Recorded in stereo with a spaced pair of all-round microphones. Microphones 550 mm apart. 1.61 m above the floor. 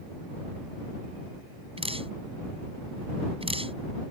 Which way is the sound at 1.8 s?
10° right (ahead or behind).